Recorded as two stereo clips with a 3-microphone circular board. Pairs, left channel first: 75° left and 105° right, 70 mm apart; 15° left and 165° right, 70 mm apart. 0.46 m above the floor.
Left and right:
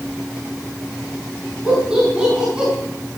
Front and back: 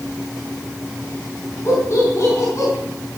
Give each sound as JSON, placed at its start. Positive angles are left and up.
{"t": 1.6, "sound": "laughter", "azimuth_deg": -30, "distance_m": 4.5}